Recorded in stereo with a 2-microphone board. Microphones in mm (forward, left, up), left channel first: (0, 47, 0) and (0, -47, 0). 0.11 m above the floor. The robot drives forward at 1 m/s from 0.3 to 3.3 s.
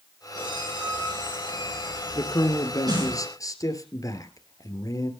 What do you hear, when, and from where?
0.3 s a squeak: 50° right (ahead or behind), 9.5 m; by 3.1 s 40° right (ahead or behind), 11.5 m
2.1 s a man speaking: 45° left (ahead or behind), 2.5 m; by 5.1 s 40° left (ahead or behind), 2.5 m